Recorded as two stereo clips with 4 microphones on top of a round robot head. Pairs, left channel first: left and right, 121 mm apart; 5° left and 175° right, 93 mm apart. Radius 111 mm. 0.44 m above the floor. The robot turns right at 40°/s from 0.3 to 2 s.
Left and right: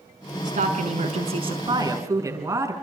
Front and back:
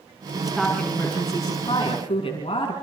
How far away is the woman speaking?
About 6 m.